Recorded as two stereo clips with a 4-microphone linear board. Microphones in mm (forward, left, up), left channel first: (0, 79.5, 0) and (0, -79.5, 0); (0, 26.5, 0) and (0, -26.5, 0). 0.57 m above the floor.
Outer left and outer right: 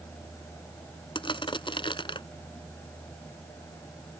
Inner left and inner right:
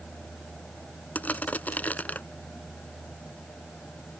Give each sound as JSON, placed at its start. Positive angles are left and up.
{"t": 1.1, "sound": "crushing", "side_deg": 30}